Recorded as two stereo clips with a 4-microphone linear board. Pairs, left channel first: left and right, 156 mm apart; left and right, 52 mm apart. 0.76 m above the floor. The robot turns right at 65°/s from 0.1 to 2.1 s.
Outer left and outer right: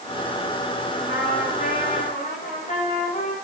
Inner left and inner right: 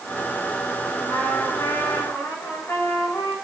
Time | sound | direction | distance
1.1 | a trumpet | 65° left | 9.5 m